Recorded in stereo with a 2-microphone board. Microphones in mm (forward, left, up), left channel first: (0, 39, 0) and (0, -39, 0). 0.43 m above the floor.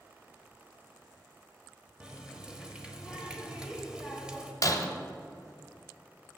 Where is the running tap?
10° right (ahead or behind), 1.1 m.